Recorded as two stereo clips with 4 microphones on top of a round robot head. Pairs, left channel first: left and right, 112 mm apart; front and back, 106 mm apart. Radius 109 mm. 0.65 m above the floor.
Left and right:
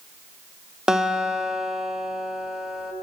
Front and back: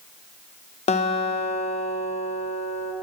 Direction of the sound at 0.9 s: 5° right.